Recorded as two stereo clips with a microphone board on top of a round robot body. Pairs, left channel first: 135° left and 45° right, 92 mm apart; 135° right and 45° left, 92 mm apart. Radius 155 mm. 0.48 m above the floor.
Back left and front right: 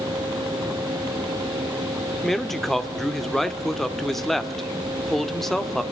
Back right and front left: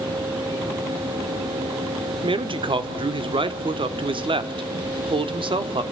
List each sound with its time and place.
2.2 s a man speaking: 50° left, 1.5 m